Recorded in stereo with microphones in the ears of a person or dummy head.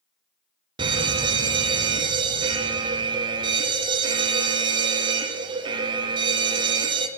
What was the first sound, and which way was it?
A fire alarm, 25° right (ahead or behind).